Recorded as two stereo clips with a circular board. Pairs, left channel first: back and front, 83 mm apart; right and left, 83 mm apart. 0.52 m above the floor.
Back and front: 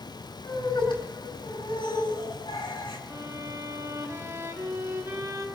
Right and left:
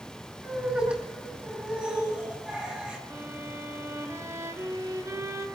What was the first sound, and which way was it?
Laughter, 165° left.